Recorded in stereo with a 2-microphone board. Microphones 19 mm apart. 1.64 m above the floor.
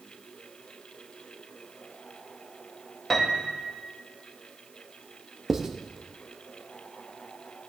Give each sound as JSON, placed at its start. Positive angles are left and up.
{"t": 3.1, "sound": "a piano", "side_deg": 5, "distance_m": 1.2}
{"t": 5.5, "sound": "writing", "side_deg": -30, "distance_m": 0.7}